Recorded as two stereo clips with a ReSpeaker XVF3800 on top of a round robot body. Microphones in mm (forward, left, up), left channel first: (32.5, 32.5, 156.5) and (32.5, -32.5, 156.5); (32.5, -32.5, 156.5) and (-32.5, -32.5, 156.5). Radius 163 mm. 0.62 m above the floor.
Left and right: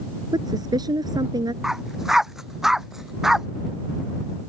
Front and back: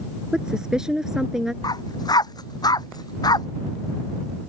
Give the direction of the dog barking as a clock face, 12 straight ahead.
12 o'clock.